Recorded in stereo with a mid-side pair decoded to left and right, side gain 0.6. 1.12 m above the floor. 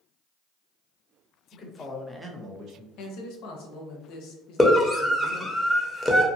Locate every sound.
1.5 s a man speaking: 40° left, 1.1 m; by 2.9 s 60° right, 1.2 m
3.0 s a man speaking: 70° left, 0.7 m
4.6 s a scream: 10° left, 0.9 m